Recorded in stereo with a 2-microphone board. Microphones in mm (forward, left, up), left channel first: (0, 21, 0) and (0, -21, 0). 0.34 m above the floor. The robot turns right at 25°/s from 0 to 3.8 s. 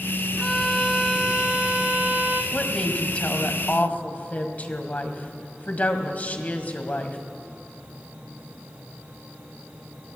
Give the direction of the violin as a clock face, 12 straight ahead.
6 o'clock.